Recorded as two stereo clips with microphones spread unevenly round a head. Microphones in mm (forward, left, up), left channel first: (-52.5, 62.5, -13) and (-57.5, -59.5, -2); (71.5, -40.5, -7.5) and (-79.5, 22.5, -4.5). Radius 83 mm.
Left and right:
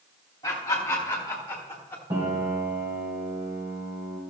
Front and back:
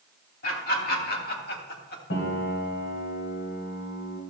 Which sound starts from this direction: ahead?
Laughter, at 0.4 s.